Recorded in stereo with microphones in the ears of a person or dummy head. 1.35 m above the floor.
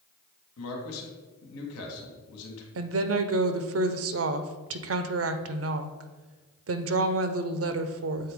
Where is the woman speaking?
70° right (ahead or behind), 0.6 m.